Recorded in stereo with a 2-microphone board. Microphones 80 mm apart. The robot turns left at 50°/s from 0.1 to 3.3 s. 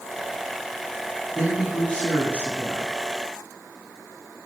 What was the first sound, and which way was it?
A woman speaking, centre (ahead or behind).